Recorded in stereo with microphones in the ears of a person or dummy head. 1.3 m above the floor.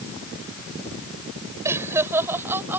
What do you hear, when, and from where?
1.6 s laughter: 15° right (ahead or behind); by 2.8 s 10° right (ahead or behind)